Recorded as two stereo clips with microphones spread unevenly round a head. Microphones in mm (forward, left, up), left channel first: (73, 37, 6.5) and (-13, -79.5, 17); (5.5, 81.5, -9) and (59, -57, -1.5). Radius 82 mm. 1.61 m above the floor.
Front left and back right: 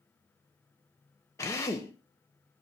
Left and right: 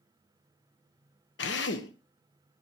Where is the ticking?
I don't hear ticking.